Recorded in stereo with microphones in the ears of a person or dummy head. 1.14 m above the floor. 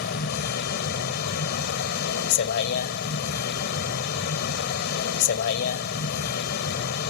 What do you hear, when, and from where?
0.0 s a vehicle: 55° left (ahead or behind)